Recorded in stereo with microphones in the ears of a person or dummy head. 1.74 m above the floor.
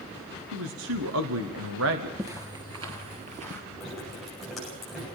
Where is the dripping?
Centre (ahead or behind), 10 m.